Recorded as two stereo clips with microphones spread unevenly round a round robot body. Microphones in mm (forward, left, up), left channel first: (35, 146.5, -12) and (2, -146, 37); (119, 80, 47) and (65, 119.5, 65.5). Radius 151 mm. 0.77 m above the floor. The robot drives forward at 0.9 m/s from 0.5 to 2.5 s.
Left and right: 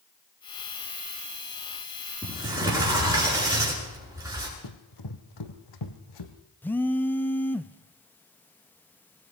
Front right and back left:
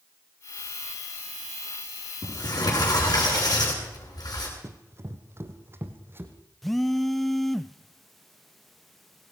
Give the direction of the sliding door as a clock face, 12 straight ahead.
12 o'clock.